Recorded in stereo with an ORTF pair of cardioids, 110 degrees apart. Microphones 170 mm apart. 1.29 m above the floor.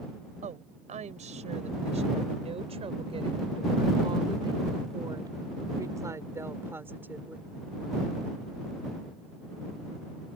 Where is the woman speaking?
45° right; by 7.5 s 10° right.